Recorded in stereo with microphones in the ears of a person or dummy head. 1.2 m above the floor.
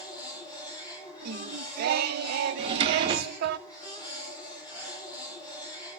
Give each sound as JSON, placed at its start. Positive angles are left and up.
{"t": 0.0, "sound": "a machine running", "side_deg": 25, "distance_m": 9.5}
{"t": 1.2, "sound": "singing", "side_deg": -55, "distance_m": 0.6}
{"t": 2.6, "sound": "a drawer", "side_deg": -35, "distance_m": 0.8}